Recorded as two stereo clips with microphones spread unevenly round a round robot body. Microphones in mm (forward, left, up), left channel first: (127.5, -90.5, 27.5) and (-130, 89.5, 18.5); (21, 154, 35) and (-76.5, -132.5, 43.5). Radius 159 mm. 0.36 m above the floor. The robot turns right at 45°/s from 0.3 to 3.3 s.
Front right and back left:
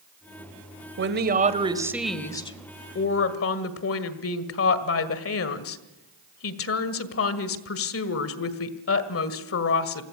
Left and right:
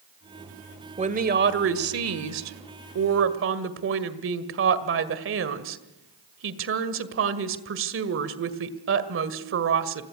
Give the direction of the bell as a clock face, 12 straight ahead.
No bell in this recording.